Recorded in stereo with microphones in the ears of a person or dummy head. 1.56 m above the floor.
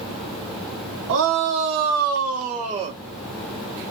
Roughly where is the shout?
Right.